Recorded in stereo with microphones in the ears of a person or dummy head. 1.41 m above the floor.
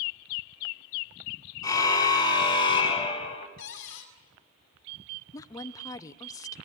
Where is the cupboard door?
70° left (ahead or behind), 5 m.